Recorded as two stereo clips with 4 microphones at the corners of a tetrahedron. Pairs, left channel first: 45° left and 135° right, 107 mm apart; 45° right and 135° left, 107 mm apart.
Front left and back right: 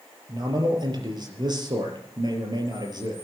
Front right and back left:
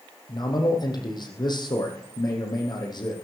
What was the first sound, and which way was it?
A man speaking, 90° right.